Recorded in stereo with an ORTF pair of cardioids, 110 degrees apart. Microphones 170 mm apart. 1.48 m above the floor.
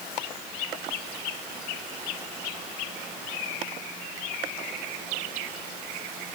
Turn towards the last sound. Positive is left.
No sound to turn to.